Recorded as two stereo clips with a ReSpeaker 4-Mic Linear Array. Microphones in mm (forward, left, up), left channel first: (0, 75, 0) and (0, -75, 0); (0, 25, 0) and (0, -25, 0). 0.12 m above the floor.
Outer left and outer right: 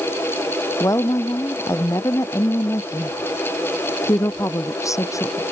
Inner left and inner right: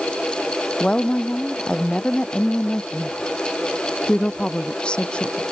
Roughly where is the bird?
No bird in this recording.